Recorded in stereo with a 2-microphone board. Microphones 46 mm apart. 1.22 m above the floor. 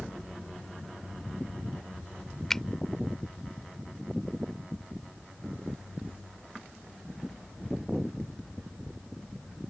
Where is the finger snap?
10° left (ahead or behind).